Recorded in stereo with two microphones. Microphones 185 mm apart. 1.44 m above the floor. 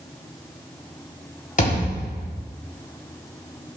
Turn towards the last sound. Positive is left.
turn(degrees=50)  # may be behind; listen again after turning